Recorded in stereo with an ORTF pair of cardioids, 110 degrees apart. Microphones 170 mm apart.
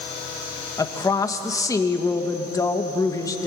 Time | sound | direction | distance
0.8 | a woman speaking | 20° left | 2.5 m